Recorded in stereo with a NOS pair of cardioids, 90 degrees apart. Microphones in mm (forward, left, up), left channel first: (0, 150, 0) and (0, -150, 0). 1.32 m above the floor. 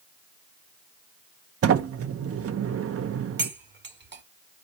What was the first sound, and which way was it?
A sliding door, 50° right.